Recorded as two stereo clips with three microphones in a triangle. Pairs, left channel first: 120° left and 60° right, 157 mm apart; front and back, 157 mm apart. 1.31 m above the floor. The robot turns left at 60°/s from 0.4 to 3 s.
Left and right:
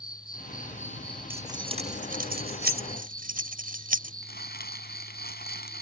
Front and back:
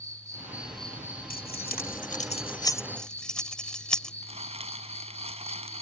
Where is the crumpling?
130° left.